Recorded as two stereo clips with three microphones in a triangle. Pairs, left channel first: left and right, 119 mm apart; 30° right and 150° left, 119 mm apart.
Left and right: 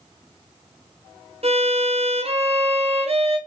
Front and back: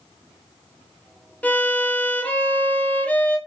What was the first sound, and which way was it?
A violin, 105° right.